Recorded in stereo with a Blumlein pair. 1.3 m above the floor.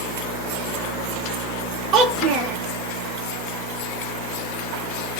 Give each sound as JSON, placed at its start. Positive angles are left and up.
{"t": 1.9, "sound": "a child speaking", "azimuth_deg": -30, "distance_m": 0.9}